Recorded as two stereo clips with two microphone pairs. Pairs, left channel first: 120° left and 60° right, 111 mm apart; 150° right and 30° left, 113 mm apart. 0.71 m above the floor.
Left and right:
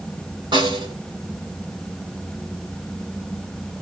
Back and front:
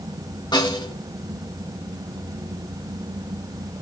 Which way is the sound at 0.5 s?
105° right.